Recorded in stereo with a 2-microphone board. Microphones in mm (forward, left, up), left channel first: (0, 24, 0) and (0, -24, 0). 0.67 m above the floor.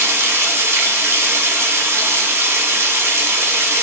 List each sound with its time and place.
0.0 s running water: 65° right (ahead or behind), 1.0 m